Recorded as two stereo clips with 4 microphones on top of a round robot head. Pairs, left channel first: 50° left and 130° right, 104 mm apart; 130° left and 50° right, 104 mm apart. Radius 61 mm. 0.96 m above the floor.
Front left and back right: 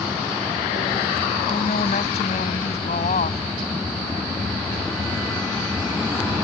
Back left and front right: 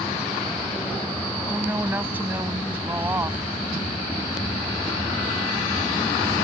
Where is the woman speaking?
20° left.